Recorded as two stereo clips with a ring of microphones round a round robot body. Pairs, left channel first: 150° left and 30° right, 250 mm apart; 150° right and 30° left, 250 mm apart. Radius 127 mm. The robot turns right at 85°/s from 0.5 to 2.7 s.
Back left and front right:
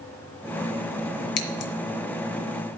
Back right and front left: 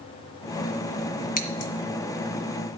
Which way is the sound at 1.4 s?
150° left.